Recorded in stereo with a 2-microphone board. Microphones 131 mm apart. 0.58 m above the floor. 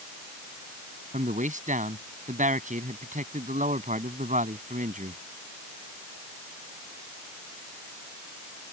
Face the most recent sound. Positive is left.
turn(degrees=-75)  # may be behind; listen again after turning